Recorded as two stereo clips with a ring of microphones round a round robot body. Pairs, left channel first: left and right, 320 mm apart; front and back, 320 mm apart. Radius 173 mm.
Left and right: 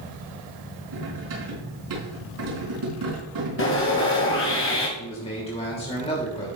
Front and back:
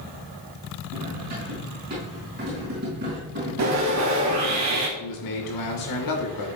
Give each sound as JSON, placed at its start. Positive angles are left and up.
{"t": 0.9, "sound": "cutlery clinking", "azimuth_deg": -115, "distance_m": 4.5}
{"t": 3.6, "sound": "sawing", "azimuth_deg": 145, "distance_m": 2.5}
{"t": 5.0, "sound": "a man speaking", "azimuth_deg": 15, "distance_m": 2.5}